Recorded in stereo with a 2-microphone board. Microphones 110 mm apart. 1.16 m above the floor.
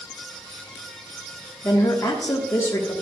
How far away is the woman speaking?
About 1.2 m.